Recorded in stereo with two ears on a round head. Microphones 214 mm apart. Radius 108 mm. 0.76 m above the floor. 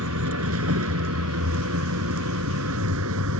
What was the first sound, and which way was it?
A vehicle, 65° right (ahead or behind).